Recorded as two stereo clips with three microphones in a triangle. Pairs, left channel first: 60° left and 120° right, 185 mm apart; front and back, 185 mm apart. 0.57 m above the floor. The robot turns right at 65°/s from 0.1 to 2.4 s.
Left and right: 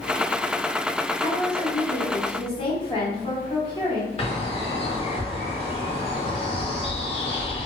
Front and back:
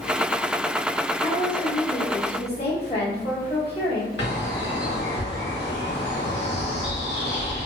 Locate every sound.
1.2 s a woman speaking: 60° right, 1.1 m; by 4.1 s 20° left, 1.1 m
4.2 s a bird: straight ahead, 0.8 m